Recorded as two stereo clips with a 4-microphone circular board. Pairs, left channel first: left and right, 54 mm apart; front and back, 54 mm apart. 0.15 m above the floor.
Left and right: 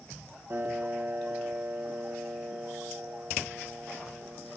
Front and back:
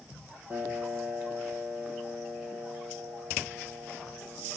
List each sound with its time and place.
0.5 s a piano: 125° right, 5.5 m